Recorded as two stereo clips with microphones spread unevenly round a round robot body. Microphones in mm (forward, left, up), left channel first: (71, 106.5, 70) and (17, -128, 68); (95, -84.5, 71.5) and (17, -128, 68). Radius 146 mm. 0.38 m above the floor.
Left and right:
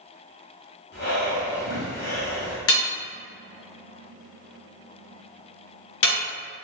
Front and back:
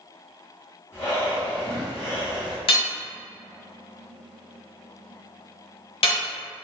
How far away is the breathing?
About 1.1 m.